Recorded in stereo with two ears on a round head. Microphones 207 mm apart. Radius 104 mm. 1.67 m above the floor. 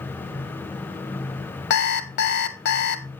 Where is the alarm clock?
50° left (ahead or behind), 1.3 m.